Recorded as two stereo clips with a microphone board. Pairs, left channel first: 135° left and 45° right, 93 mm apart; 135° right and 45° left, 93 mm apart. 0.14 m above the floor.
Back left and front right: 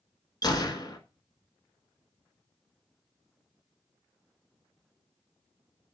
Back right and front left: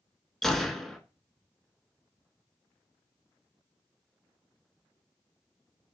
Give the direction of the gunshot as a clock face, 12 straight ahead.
7 o'clock.